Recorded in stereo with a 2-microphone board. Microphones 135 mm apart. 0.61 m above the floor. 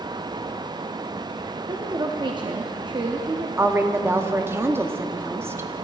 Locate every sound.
1.7 s a woman speaking: 35° right (ahead or behind), 0.7 m
3.6 s a woman speaking: 20° right (ahead or behind), 0.6 m